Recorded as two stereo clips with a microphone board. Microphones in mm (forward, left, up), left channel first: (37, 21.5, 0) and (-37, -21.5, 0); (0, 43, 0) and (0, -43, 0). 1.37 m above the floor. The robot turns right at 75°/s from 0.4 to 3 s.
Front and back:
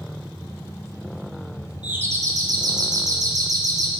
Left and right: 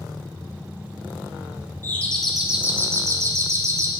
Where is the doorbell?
145° left, 0.9 m; by 3.9 s 125° right, 0.9 m.